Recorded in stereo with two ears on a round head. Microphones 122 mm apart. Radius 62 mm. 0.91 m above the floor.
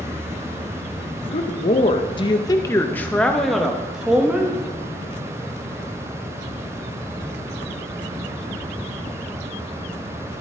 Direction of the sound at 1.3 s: 45° left (ahead or behind).